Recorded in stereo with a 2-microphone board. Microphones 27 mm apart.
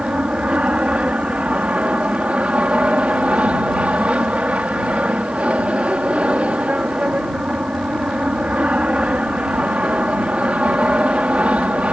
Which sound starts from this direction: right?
An aircraft, at 0.0 s.